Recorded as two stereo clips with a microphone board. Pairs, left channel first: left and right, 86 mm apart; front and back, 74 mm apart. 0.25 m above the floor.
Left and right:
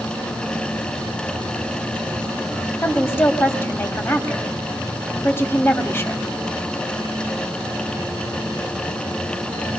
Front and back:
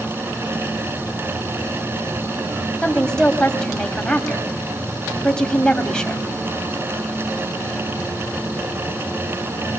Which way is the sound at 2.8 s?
70° left.